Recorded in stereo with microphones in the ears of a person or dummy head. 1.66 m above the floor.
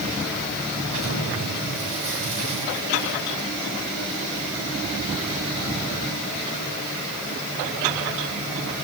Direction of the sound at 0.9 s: 85° right.